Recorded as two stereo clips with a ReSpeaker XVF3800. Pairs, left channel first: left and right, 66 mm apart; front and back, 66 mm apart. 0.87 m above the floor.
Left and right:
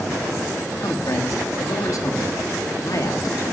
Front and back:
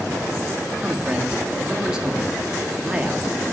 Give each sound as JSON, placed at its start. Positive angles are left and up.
{"t": 0.8, "sound": "a man speaking", "azimuth_deg": 105, "distance_m": 1.6}